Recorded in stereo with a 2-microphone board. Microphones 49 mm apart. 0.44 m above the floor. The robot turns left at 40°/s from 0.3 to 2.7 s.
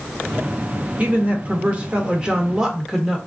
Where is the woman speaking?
90° right, 0.8 m; by 3.2 s 155° right, 0.8 m.